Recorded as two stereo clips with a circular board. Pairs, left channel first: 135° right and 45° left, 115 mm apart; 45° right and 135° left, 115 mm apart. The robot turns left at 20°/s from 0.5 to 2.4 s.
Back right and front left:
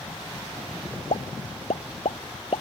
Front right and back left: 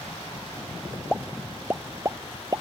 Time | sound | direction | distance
1.1 | a pop | 140° right | ?